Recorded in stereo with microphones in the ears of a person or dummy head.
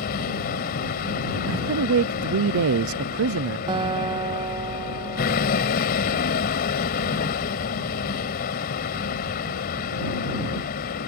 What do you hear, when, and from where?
0.0 s a vehicle: 50° left (ahead or behind)
1.5 s a man speaking: 70° right (ahead or behind)
3.7 s a guitar: 25° right (ahead or behind)